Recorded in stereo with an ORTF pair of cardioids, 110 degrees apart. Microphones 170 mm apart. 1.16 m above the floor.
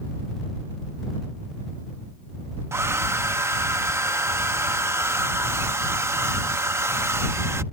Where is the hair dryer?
15° right.